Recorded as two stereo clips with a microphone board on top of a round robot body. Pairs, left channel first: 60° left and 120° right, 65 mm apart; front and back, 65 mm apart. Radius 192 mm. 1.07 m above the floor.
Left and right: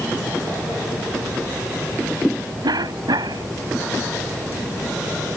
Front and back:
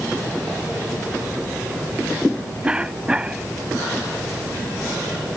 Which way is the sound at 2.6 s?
105° right.